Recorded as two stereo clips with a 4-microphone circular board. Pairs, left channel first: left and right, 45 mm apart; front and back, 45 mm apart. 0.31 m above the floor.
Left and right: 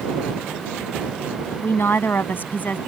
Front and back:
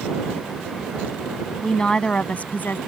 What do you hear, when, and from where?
1.6 s a woman speaking: 80° left; by 2.8 s 40° left